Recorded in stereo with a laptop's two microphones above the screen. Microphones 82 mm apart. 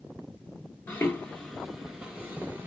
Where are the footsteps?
30° left (ahead or behind), 1.0 m; by 2.7 s 30° right (ahead or behind), 1.1 m.